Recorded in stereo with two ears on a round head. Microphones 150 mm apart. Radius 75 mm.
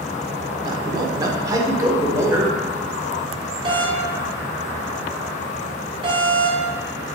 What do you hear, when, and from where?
0.7 s a man speaking: 25° right (ahead or behind), 1.1 m; by 2.6 s 15° right (ahead or behind), 2.0 m
3.6 s a doorbell: 30° right (ahead or behind), 2 m